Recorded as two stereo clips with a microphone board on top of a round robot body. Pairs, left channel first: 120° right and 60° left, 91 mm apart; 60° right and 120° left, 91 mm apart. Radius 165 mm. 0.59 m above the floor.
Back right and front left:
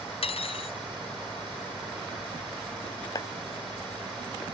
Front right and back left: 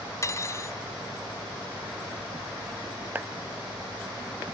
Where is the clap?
170° right.